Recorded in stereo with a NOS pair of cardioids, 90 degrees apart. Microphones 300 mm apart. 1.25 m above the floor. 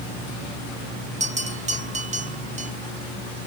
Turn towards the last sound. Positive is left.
turn(degrees=-25)